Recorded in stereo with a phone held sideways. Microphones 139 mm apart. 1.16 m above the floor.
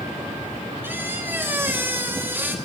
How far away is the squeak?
About 0.8 m.